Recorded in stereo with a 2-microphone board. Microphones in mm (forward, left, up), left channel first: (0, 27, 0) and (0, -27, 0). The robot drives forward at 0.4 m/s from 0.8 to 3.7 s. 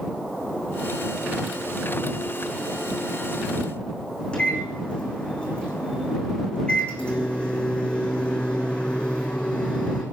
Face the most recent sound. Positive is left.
turn(degrees=20)  # may be behind; listen again after turning